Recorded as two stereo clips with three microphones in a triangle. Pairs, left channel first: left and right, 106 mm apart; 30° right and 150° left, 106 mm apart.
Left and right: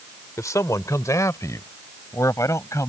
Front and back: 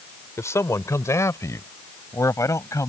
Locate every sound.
0.4 s a man speaking: 30° left